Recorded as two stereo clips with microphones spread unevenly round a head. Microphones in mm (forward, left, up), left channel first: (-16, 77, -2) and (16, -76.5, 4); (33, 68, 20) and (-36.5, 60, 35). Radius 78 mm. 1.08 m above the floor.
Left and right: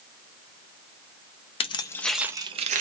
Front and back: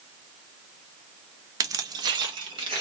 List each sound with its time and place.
1.6 s keys jangling: 160° left, 0.6 m; by 2.8 s 120° right, 0.6 m